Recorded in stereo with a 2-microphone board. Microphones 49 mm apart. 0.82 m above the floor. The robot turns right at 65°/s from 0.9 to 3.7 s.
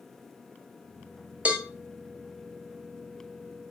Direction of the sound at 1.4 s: 25° right (ahead or behind).